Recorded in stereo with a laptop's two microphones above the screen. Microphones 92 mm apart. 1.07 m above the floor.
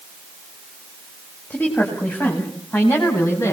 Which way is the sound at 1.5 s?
20° left (ahead or behind).